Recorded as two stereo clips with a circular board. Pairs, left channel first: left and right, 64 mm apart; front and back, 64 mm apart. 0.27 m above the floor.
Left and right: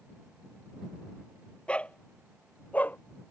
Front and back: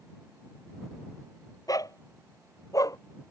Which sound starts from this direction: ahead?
A dog barking, at 1.7 s.